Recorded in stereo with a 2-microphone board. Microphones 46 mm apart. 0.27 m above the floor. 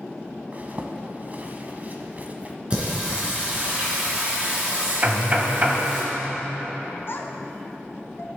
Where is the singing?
25° right (ahead or behind), 3 m.